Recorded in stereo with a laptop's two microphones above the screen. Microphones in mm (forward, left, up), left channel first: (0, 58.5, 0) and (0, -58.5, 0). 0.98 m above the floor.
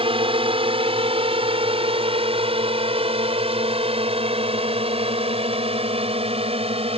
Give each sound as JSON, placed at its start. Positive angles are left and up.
{"t": 0.0, "sound": "a drone", "side_deg": -50}